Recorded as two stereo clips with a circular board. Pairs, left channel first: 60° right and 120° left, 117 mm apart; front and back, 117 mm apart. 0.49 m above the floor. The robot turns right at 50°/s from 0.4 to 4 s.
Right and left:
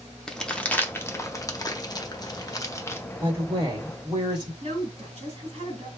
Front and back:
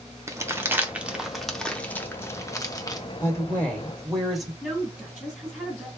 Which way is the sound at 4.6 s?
90° left.